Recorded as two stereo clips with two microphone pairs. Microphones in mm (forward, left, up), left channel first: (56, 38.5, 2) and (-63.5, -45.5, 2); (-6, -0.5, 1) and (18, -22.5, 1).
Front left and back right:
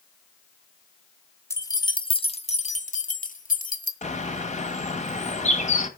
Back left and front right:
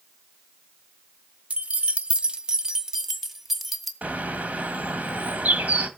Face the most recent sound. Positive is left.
turn(degrees=0)